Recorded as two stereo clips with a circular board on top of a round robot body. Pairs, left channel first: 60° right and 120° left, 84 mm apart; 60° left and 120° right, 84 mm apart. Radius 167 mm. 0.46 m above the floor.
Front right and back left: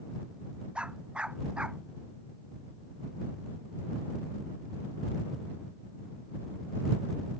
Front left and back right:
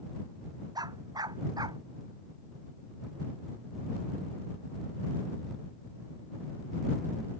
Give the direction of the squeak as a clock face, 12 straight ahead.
No squeak in this recording.